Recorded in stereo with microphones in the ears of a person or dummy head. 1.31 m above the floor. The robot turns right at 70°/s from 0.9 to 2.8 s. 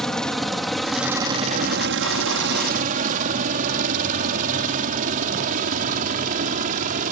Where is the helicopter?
Centre (ahead or behind); by 7.1 s 40° right (ahead or behind).